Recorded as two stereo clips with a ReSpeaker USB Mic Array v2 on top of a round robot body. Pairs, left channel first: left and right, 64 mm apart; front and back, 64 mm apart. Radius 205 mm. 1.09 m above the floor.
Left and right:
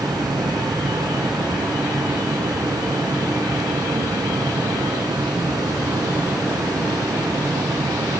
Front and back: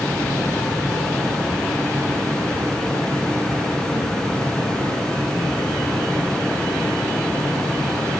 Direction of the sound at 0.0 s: 80° right.